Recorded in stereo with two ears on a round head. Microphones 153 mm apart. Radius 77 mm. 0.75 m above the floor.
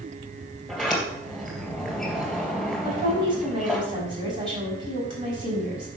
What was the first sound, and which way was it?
A sliding door, centre (ahead or behind).